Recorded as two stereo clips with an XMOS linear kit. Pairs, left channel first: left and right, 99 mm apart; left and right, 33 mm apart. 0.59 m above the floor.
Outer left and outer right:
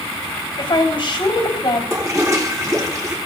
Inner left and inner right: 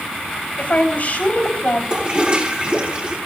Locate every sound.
0.6 s a woman speaking: 50° left (ahead or behind), 3 m
1.9 s a toilet flushing: 35° right (ahead or behind), 3.5 m